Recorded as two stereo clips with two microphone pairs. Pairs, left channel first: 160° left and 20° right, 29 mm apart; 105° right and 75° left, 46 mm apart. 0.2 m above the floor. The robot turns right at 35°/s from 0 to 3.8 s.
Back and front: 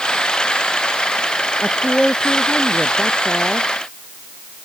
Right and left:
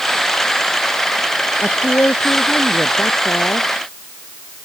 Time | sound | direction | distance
1.6 | a woman speaking | 150° right | ?